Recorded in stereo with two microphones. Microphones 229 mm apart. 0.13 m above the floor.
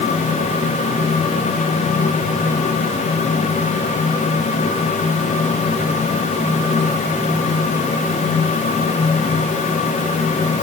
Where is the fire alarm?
No fire alarm in this recording.